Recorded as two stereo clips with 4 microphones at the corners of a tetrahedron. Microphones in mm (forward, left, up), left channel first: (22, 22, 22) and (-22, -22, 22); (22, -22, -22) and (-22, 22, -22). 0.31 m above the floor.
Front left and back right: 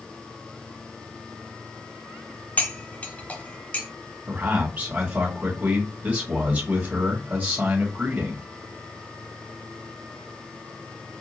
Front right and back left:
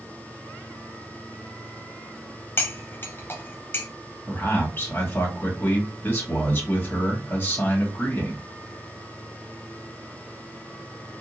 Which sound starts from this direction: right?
A man speaking, at 4.3 s.